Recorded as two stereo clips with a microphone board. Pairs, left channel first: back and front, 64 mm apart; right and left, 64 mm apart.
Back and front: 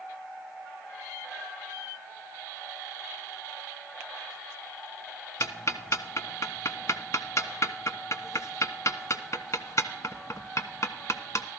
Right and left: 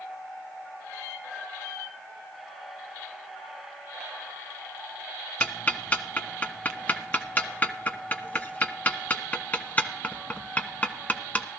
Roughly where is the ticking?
Behind right.